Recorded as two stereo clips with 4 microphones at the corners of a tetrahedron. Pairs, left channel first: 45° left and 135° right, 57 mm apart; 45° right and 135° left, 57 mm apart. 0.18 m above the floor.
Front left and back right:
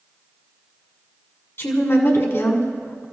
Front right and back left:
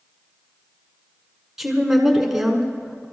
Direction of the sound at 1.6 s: 50° left.